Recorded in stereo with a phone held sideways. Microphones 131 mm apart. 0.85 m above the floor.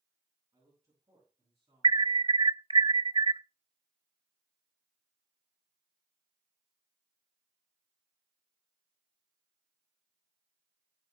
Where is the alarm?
40° right (ahead or behind), 0.6 m.